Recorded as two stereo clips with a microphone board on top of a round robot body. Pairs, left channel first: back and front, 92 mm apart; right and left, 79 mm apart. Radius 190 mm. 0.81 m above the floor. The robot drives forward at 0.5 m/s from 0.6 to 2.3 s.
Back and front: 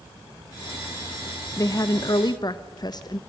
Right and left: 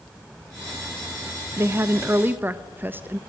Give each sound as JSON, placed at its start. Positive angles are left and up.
{"t": 1.6, "sound": "a woman speaking", "azimuth_deg": 140, "distance_m": 1.2}